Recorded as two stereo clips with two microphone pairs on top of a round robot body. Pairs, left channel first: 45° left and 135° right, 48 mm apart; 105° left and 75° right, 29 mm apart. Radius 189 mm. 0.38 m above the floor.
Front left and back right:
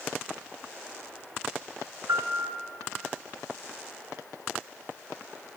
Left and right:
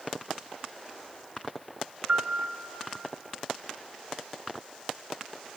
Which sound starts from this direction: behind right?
A piano, at 2.1 s.